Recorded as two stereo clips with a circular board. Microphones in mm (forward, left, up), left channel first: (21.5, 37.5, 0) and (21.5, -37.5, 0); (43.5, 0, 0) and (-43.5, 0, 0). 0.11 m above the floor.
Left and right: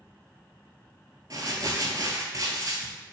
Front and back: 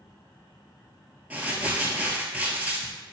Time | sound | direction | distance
1.3 | crumpling | 110° right | 0.7 m